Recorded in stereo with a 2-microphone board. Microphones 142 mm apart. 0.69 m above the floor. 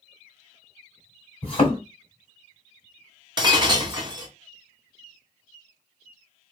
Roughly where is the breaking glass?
Right.